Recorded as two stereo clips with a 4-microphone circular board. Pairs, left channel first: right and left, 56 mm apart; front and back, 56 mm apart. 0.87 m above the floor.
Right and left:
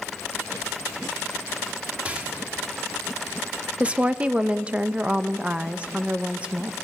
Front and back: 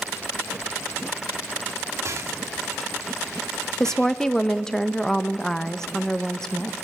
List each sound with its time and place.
2.0 s a rattle: 155° left, 1.4 m
3.8 s a woman speaking: 65° left, 0.6 m